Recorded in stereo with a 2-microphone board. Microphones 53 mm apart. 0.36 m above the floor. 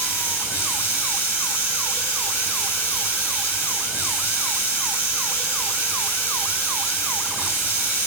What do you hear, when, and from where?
0.0 s running water: 45° left (ahead or behind), 2.0 m